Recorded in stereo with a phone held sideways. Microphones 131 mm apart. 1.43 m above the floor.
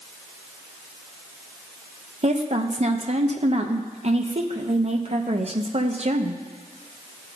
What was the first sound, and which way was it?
A woman speaking, 50° right (ahead or behind).